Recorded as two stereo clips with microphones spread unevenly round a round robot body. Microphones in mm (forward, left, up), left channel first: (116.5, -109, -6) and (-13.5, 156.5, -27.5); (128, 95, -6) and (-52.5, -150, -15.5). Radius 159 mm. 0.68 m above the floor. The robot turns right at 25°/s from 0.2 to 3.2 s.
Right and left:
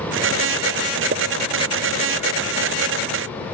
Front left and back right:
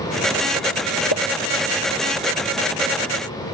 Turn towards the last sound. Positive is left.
turn(degrees=115)